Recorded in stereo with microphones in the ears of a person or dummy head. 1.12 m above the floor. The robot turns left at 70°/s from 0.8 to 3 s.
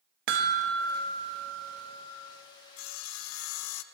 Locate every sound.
0.3 s a chime: 120° right, 0.9 m; by 2.1 s 155° left, 0.9 m
2.8 s sawing: 65° left (ahead or behind), 0.5 m; by 3.8 s 75° left (ahead or behind), 0.5 m